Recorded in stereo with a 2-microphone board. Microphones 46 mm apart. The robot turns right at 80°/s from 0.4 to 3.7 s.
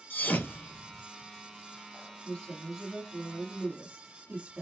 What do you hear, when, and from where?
0.1 s a thud: 50° left (ahead or behind), 1.0 m; by 1.0 s 70° left (ahead or behind), 1.0 m
2.2 s a woman speaking: 135° left, 1.2 m; by 4.6 s 110° right, 1.2 m